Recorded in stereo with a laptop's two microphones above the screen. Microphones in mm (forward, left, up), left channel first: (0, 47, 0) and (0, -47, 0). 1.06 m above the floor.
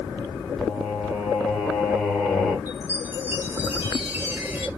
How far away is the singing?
About 1.7 m.